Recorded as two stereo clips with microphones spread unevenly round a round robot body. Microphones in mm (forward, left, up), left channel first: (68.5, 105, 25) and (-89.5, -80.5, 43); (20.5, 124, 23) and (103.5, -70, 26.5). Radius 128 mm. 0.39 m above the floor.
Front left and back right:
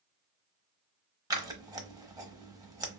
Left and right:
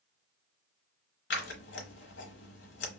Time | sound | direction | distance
1.3 | scissors | 155° left | 0.8 m